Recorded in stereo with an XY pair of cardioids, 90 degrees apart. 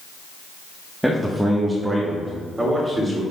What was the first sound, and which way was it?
A man speaking, 5° right.